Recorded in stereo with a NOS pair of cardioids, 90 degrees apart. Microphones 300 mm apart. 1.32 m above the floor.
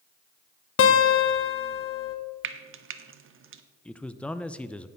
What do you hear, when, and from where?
0.8 s a guitar: 45° left, 1.2 m
2.4 s frying: 45° right, 0.8 m
3.9 s a man speaking: 5° left, 0.6 m